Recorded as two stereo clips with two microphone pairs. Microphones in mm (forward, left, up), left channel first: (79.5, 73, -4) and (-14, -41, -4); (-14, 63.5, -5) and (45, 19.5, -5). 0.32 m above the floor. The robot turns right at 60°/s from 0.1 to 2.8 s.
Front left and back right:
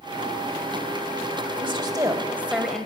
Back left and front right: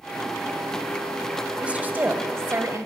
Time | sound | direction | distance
1.6 | a woman speaking | 105° right | 1.4 m